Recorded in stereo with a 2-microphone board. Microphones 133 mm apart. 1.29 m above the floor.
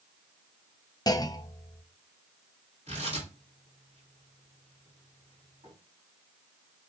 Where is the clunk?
30° left (ahead or behind), 0.6 m.